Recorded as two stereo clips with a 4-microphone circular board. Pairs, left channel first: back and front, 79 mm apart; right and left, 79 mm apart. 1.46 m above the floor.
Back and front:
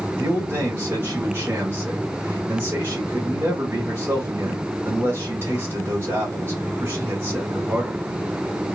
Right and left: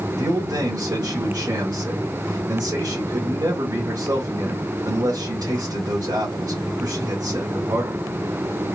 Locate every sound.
0.2 s a man speaking: 55° left, 1.8 m